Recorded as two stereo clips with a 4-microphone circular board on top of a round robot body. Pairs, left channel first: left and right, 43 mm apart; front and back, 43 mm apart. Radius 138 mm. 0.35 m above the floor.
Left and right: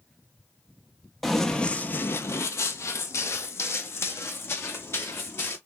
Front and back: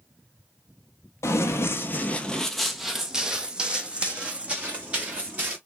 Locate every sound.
1.2 s running footsteps: straight ahead, 0.7 m; by 5.6 s 125° left, 2.5 m